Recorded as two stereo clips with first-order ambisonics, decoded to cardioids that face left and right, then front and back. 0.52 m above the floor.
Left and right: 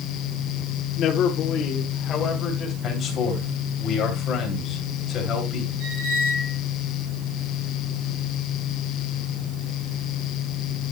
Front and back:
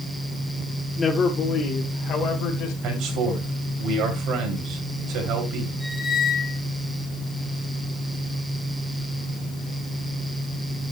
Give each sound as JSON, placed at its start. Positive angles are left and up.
{"t": 1.0, "sound": "a man speaking", "azimuth_deg": 75, "distance_m": 1.2}
{"t": 2.8, "sound": "a man speaking", "azimuth_deg": 150, "distance_m": 3.0}
{"t": 5.8, "sound": "a squeak", "azimuth_deg": -90, "distance_m": 4.5}